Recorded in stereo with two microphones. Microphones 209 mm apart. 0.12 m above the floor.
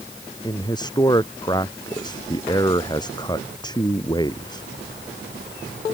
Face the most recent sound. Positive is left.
turn(degrees=20)  # may be behind; listen again after turning